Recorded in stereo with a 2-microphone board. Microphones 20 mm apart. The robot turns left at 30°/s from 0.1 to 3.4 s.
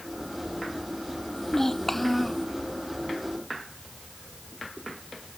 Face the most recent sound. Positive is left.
turn(degrees=-35)